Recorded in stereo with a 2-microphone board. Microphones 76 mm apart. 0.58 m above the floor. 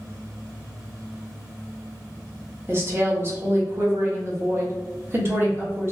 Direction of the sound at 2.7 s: 30° right (ahead or behind).